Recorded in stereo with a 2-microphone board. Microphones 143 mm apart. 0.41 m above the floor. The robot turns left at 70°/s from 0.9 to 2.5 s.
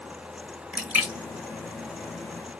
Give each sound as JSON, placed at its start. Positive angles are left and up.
{"t": 0.7, "sound": "a splash", "side_deg": -10, "distance_m": 1.2}